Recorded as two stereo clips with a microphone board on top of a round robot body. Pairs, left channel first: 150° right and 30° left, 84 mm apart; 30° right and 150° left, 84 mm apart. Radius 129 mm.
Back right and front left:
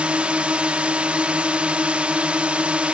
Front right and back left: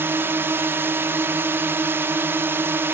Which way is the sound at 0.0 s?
100° left.